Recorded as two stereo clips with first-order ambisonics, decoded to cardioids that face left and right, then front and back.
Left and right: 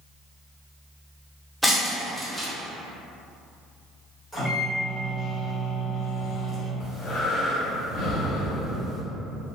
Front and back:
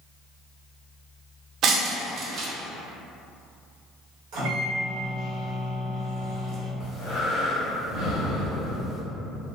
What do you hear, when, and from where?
1.6 s breaking glass: 170° left, 0.6 m
4.3 s a microwave: 170° left, 1.3 m
6.8 s breathing: 80° left, 1.3 m